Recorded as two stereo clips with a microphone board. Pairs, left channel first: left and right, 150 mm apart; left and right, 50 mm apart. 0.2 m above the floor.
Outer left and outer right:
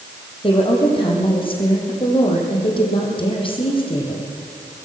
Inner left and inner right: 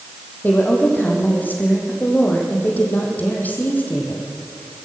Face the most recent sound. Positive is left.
turn(degrees=35)  # may be behind; listen again after turning